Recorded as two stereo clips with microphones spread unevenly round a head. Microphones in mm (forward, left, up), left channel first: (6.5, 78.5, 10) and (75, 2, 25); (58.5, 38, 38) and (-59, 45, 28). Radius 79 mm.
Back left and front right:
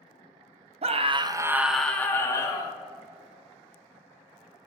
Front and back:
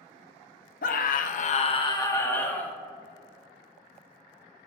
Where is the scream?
25° right, 0.6 m; by 2.8 s 75° left, 1.1 m.